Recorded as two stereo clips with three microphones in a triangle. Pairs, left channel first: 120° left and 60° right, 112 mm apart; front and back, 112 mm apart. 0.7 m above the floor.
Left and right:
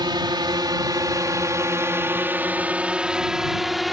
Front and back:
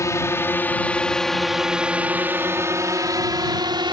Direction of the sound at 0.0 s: 45° right.